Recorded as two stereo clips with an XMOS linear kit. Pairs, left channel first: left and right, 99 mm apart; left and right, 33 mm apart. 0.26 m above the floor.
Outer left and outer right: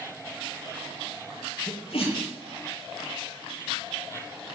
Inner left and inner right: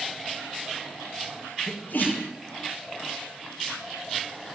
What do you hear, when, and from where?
1.7 s a sneeze: 75° left (ahead or behind), 7 m